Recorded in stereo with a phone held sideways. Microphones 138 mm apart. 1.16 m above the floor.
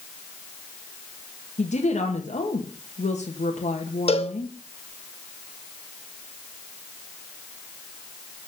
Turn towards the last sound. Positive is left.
turn(degrees=45)  # may be behind; listen again after turning